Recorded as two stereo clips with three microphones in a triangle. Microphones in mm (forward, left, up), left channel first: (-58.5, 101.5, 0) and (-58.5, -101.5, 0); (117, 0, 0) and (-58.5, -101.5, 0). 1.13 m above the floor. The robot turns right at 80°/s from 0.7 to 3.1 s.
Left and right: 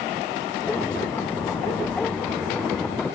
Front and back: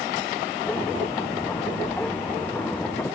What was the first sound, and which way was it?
Only background noise.